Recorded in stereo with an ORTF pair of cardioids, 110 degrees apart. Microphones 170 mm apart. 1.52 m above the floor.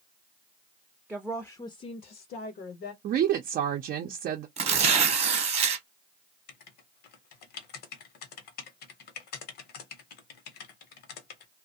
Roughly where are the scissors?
I don't hear scissors.